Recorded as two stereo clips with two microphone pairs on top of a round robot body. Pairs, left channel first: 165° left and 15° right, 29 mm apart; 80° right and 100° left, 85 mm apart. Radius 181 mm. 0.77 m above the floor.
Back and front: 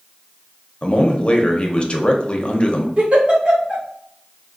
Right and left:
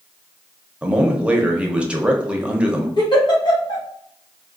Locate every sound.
0.8 s a man speaking: 175° left, 1.0 m
3.0 s a giggle: 60° right, 1.8 m